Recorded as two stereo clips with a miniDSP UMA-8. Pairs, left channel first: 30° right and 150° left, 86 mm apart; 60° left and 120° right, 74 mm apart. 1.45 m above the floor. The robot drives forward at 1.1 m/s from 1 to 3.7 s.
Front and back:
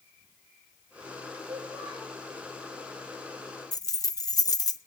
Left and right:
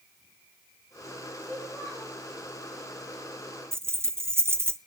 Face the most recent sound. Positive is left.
turn(degrees=-65)